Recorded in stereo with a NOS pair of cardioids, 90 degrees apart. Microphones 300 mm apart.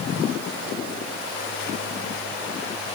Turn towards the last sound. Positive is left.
No sound to turn to.